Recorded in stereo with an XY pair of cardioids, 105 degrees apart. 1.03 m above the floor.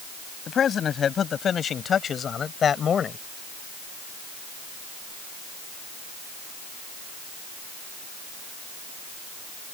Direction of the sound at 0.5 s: 50° left.